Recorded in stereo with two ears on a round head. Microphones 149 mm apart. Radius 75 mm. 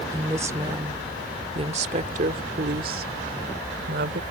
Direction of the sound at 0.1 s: 15° right (ahead or behind).